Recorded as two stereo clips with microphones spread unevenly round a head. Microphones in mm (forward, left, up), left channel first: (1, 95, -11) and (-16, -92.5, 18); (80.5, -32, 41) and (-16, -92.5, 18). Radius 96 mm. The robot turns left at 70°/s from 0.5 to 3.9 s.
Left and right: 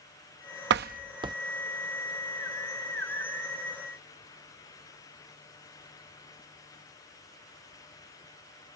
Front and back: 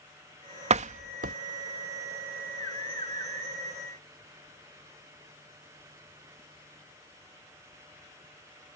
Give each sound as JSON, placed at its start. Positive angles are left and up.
{"t": 0.7, "sound": "a door slam", "azimuth_deg": -120}